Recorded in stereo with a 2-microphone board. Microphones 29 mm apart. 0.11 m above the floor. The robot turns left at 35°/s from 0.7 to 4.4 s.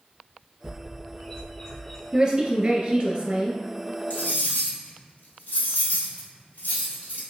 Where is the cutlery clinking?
65° left (ahead or behind), 1.7 m; by 7.2 s 60° left (ahead or behind), 1.7 m.